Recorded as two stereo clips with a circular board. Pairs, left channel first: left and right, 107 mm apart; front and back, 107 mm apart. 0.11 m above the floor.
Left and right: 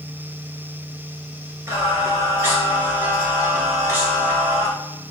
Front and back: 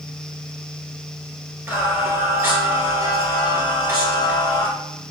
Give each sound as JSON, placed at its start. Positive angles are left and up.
{"t": 1.7, "sound": "singing", "azimuth_deg": -130, "distance_m": 1.1}